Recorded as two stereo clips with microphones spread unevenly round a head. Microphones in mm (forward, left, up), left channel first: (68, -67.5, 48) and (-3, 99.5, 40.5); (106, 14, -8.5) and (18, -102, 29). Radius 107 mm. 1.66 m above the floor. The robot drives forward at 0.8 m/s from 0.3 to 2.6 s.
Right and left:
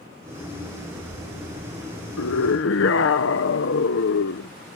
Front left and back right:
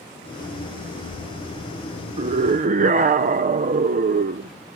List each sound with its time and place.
2.2 s a scream: 85° right; by 4.5 s 100° right